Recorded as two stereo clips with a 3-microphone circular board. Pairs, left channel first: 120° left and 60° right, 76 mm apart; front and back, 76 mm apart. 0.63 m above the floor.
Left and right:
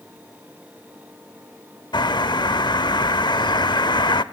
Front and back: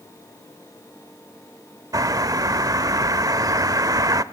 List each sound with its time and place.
1.9 s a bird: 140° left, 0.8 m